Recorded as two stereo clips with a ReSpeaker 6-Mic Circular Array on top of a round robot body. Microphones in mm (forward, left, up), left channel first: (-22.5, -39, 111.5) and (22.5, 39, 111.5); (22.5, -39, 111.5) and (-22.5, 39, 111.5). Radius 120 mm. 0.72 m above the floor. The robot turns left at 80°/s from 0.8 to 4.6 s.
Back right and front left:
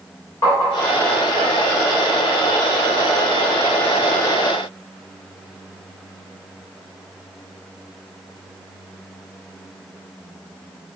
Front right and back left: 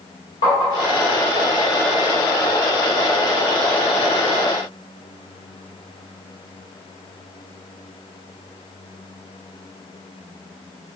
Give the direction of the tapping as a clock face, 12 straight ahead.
2 o'clock.